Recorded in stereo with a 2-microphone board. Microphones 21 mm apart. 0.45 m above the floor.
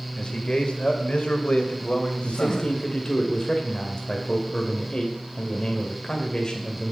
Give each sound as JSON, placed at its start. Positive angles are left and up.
{"t": 0.2, "sound": "a man speaking", "side_deg": 45, "distance_m": 1.9}
{"t": 2.2, "sound": "a man speaking", "side_deg": 30, "distance_m": 2.0}